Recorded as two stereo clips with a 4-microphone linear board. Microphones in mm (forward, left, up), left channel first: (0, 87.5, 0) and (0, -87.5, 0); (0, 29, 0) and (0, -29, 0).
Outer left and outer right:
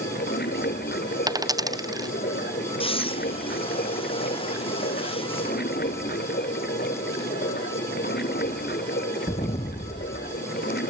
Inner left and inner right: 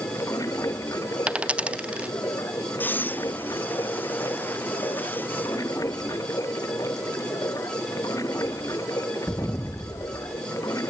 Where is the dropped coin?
20° right (ahead or behind).